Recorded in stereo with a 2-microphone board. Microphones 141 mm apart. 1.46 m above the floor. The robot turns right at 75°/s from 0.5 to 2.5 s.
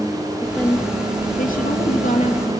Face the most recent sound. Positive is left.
turn(degrees=145)